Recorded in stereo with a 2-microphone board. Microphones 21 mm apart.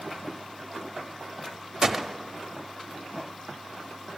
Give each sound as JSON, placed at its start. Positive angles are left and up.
{"t": 1.8, "sound": "a gunshot", "side_deg": -20, "distance_m": 0.6}